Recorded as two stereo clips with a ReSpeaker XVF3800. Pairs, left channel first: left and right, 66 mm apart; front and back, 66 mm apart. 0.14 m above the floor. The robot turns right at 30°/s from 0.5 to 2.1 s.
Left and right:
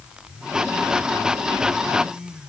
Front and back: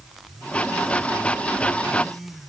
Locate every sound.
Only background noise.